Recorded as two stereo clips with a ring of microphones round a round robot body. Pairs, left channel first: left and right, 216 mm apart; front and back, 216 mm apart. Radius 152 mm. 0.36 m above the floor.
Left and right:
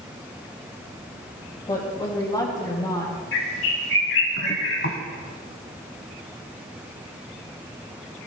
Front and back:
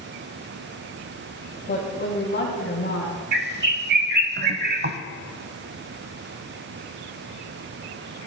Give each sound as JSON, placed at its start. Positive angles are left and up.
{"t": 1.7, "sound": "a woman speaking", "azimuth_deg": 30, "distance_m": 2.5}
{"t": 3.3, "sound": "a bird", "azimuth_deg": 145, "distance_m": 0.8}